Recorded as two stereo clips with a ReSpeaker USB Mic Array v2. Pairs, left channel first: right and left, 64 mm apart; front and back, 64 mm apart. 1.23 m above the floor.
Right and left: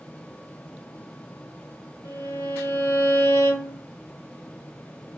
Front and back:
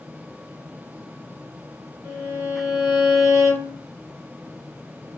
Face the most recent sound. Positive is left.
turn(degrees=-95)